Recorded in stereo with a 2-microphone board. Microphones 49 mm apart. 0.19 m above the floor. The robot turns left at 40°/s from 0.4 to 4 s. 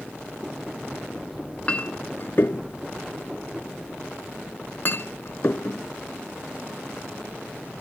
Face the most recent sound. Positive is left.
turn(degrees=50)  # may be behind; listen again after turning